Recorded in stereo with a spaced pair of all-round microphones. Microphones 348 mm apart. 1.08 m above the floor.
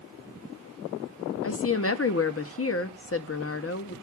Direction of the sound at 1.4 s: 40° left (ahead or behind).